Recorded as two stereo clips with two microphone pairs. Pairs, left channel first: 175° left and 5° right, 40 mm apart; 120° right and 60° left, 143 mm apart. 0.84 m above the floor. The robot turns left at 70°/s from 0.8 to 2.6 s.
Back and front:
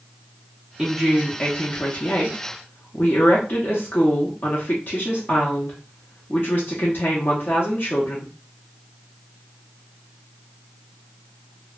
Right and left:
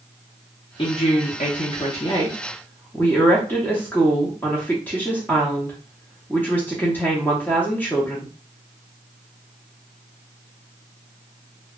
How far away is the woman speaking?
About 0.7 m.